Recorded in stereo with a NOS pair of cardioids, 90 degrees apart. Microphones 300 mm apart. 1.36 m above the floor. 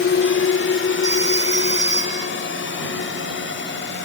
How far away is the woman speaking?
No woman speaking in this recording.